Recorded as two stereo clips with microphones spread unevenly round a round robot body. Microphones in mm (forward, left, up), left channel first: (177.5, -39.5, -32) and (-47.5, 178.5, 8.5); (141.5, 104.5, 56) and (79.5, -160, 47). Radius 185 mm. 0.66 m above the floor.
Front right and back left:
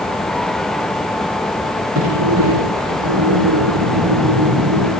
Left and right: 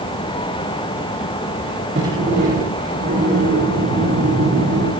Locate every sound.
1.9 s a sliding door: 175° right, 10 m